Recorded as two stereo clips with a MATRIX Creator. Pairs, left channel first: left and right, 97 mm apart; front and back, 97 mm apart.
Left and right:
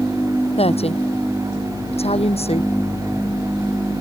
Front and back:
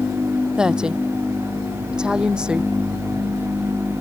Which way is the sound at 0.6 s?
95° left.